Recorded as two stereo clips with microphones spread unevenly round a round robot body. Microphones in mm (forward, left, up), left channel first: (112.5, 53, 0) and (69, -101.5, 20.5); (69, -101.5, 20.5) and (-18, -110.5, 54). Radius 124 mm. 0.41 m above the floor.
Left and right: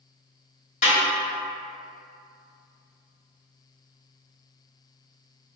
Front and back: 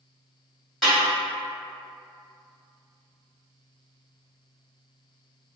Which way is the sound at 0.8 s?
70° left.